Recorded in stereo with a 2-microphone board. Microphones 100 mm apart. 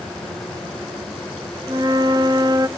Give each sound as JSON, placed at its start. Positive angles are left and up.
{"t": 1.7, "sound": "a flute", "side_deg": -45, "distance_m": 0.9}